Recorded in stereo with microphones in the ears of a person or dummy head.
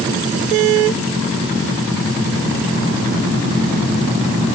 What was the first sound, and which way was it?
Only background noise.